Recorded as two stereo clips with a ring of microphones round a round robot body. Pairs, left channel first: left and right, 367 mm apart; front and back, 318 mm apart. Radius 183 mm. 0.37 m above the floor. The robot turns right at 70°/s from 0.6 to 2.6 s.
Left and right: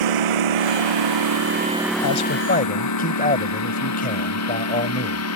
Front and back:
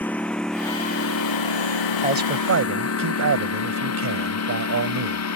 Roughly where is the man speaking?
Behind left.